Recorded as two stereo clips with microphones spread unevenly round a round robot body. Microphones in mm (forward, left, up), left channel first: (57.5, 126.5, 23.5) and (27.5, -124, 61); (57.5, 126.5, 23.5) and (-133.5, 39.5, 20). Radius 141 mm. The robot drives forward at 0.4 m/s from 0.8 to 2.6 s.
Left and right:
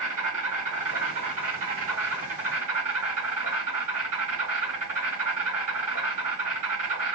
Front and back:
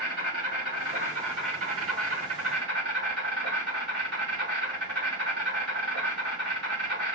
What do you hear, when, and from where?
0.0 s an insect: 130° right, 2 m; by 7.2 s 150° right, 2.5 m